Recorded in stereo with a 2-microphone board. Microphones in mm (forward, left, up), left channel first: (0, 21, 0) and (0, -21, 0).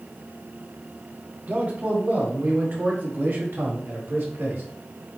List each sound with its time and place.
1.5 s a man speaking: 40° right (ahead or behind), 3 m; by 4.6 s 65° right (ahead or behind), 3.5 m